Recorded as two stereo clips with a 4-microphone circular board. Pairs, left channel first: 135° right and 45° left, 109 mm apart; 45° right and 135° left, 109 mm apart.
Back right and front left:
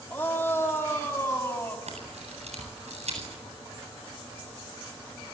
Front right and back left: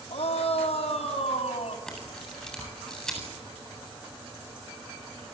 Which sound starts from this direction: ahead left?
A camera shutter, at 1.9 s.